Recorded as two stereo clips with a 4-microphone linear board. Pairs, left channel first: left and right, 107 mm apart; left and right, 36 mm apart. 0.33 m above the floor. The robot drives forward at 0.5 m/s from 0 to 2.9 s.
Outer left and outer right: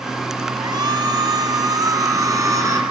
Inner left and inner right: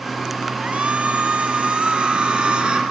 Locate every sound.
0.6 s a shout: 40° right (ahead or behind), 2.5 m; by 2.8 s 30° right (ahead or behind), 3.5 m